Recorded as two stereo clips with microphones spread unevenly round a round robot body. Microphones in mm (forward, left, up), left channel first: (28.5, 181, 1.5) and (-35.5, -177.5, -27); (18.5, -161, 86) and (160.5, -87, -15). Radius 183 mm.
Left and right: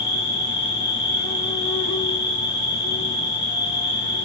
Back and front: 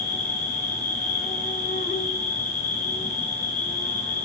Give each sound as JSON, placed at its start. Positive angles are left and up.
{"t": 0.0, "sound": "an insect", "azimuth_deg": 125, "distance_m": 1.0}